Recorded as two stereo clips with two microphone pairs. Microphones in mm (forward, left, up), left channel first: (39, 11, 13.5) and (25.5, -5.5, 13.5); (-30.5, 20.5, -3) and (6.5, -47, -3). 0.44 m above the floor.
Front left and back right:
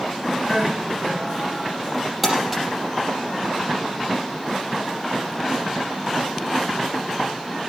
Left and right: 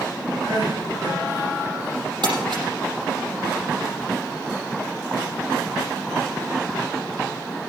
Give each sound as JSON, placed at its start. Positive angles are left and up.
{"t": 0.4, "sound": "crying", "azimuth_deg": -45, "distance_m": 8.5}
{"t": 2.2, "sound": "crumpling", "azimuth_deg": -50, "distance_m": 5.0}